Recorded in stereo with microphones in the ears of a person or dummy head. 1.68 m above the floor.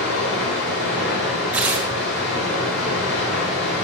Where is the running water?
65° left (ahead or behind), 2.5 m.